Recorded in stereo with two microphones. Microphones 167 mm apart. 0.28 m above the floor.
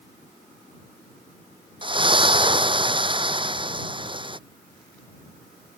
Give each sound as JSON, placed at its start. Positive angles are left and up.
{"t": 1.8, "sound": "a splash", "side_deg": -30}